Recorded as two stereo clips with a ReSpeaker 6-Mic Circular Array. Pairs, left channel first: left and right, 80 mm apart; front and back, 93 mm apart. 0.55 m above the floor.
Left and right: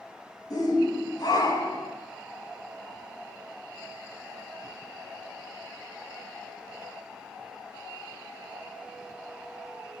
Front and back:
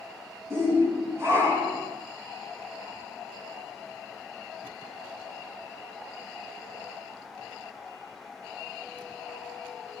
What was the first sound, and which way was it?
A shout, 120° left.